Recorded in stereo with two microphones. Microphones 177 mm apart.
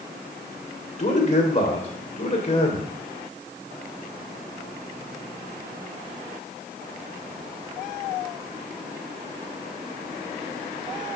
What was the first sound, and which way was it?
A man speaking, 40° left (ahead or behind).